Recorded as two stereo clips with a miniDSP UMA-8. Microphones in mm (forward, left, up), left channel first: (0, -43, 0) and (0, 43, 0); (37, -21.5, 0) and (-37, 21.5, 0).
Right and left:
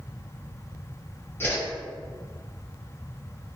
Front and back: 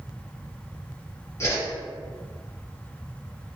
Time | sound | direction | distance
1.4 | a whoosh | 50° right | 1.0 m